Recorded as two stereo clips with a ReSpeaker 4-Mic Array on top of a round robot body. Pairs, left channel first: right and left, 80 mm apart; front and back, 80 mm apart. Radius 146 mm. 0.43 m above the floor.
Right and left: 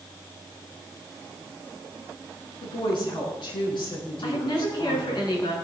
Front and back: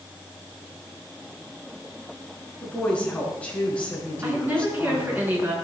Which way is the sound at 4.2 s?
115° right.